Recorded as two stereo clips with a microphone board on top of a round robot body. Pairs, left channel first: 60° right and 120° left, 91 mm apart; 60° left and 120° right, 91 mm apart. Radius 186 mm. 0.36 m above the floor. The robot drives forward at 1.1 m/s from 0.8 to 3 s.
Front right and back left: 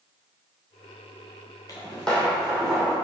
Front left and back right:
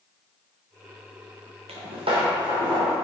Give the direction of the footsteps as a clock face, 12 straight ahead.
4 o'clock.